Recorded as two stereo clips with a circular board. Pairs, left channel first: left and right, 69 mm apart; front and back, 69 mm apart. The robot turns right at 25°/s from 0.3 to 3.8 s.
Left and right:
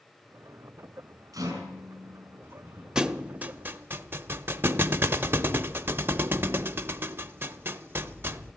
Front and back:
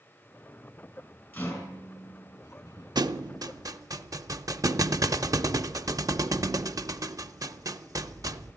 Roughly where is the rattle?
Ahead right.